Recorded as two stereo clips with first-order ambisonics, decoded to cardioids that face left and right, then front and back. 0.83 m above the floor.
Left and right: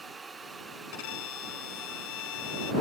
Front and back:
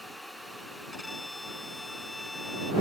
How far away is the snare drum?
No snare drum in this recording.